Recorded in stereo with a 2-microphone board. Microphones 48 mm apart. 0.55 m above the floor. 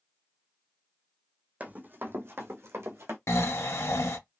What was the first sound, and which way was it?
Running footsteps, 30° right (ahead or behind).